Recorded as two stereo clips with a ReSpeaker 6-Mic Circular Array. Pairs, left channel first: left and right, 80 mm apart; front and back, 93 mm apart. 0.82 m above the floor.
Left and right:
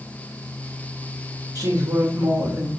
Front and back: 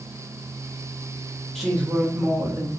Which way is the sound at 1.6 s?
85° right.